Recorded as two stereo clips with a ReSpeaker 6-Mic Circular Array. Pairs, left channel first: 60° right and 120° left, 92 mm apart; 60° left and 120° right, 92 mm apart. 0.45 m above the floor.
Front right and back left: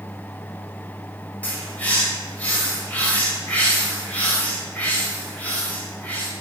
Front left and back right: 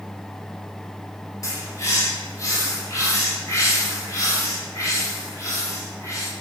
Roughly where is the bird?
Ahead.